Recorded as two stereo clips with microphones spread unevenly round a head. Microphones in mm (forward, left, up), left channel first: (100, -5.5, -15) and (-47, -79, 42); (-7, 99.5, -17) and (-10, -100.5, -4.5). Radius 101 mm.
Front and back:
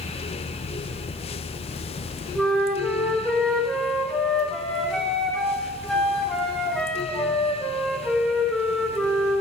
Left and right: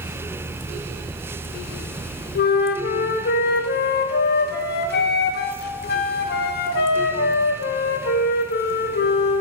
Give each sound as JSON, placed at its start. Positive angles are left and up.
{"t": 2.4, "sound": "a flute", "azimuth_deg": 95, "distance_m": 0.5}